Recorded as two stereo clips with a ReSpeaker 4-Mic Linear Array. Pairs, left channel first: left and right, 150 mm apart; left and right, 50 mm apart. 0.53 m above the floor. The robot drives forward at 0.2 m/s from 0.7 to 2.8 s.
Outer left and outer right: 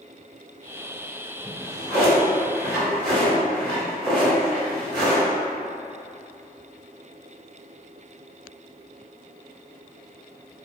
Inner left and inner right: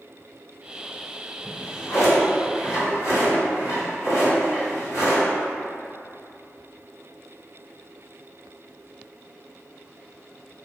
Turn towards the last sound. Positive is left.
turn(degrees=75)  # may be behind; listen again after turning